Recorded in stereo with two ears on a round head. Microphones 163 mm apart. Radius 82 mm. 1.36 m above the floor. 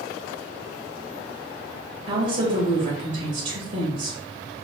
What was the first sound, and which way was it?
A woman speaking, 40° right (ahead or behind).